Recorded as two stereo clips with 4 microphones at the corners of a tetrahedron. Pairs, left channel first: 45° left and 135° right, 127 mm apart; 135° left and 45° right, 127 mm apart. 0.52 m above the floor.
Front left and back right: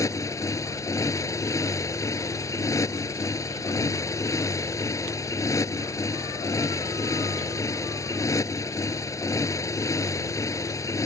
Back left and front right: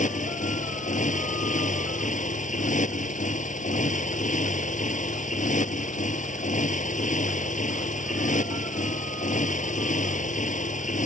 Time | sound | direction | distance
0.0 | a motorcycle | 115° left | ?